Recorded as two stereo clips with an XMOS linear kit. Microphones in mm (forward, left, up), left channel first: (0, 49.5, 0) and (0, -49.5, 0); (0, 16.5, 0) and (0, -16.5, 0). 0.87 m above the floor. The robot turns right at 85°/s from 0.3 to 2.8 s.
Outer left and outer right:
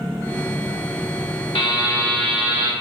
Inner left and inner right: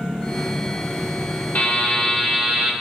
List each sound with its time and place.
1.6 s a buzzer: 120° left, 0.8 m; by 2.7 s 140° right, 0.8 m